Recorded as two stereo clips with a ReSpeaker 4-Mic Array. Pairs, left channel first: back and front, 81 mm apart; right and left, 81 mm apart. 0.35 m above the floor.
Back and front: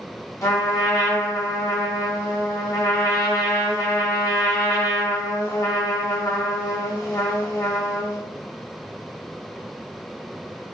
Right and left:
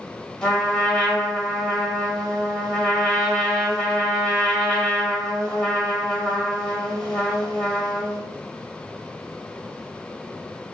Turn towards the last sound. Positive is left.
turn(degrees=-165)